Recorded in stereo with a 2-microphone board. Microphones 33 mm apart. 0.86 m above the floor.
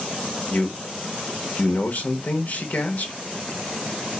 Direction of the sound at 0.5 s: 55° left (ahead or behind).